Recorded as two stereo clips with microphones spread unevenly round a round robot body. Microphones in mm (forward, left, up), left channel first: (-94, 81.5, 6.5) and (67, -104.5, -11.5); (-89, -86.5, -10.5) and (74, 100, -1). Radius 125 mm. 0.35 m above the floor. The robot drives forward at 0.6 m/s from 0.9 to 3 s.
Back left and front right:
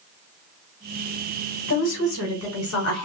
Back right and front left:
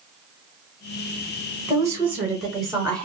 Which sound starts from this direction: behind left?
A woman speaking, at 1.7 s.